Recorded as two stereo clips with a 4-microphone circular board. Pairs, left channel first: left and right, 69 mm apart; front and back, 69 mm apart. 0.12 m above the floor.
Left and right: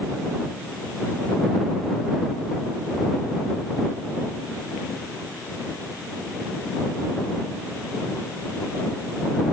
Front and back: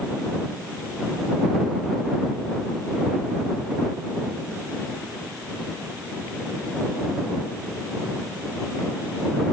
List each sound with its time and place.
Only background noise.